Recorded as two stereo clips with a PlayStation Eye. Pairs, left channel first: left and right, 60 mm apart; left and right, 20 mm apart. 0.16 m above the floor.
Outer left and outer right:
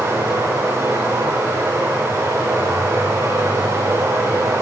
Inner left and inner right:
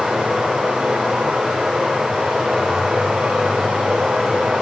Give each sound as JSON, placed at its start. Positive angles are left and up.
{"t": 0.0, "sound": "running water", "side_deg": -85, "distance_m": 7.0}